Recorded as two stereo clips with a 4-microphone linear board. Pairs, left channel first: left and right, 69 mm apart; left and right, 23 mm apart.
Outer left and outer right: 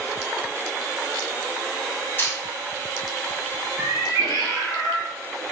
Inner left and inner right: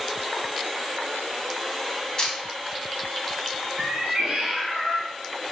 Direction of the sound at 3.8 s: 65° right (ahead or behind).